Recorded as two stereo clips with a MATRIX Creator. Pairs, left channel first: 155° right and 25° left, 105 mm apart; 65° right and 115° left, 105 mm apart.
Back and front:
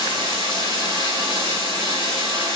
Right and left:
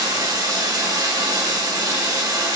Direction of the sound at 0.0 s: 55° left.